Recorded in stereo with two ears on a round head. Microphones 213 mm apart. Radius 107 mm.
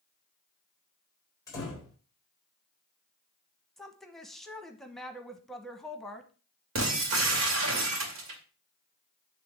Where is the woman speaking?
Centre (ahead or behind), 1.0 m.